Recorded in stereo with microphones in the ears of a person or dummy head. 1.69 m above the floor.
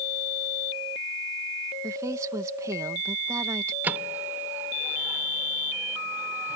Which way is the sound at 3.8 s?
15° right (ahead or behind).